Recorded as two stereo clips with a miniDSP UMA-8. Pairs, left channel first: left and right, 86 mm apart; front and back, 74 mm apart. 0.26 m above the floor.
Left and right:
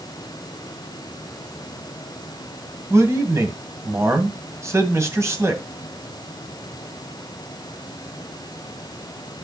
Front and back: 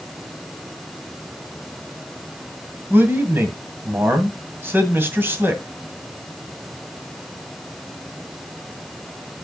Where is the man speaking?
130° right, 2 m.